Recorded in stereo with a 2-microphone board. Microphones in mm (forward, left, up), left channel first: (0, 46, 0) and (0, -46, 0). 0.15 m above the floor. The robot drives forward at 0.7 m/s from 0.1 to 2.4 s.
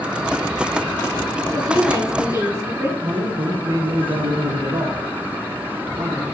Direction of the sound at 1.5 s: 35° right (ahead or behind).